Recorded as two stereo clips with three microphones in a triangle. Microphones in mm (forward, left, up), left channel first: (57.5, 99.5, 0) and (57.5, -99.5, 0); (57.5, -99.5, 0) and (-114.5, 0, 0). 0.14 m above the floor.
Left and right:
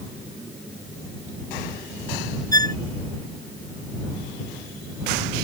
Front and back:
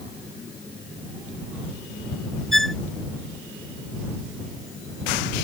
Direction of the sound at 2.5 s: 160° left.